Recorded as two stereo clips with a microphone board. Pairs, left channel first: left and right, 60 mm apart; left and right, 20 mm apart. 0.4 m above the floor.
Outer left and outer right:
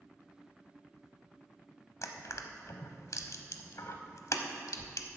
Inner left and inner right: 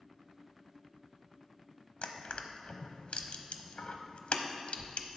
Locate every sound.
2.0 s crushing: 65° left (ahead or behind), 0.8 m